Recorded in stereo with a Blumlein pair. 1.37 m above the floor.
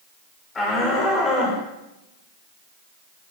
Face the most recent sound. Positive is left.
turn(degrees=20)